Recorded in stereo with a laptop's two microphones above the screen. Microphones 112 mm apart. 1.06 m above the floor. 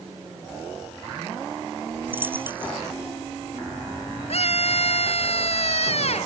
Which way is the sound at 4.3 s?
60° left (ahead or behind).